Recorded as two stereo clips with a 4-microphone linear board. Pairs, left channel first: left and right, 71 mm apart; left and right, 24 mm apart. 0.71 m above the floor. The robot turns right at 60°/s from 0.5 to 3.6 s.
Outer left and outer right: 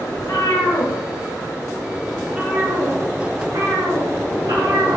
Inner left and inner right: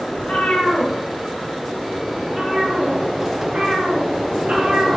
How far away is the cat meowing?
About 2.5 m.